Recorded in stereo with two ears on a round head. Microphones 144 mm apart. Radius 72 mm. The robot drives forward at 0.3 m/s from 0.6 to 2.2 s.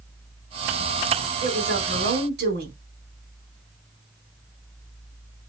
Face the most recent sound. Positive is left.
turn(degrees=-70)  # may be behind; listen again after turning